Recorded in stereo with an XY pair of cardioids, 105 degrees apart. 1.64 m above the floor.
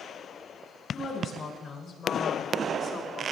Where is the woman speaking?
45° left, 6.5 m.